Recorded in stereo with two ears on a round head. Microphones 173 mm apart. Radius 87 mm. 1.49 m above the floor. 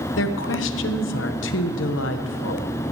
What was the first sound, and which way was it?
A woman speaking, 75° left (ahead or behind).